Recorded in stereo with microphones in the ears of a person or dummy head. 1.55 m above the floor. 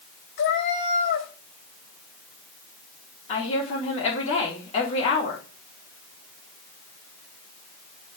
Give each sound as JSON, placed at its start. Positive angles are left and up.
{"t": 0.4, "sound": "a cat meowing", "side_deg": 55, "distance_m": 3.0}
{"t": 3.3, "sound": "a woman speaking", "side_deg": 35, "distance_m": 3.5}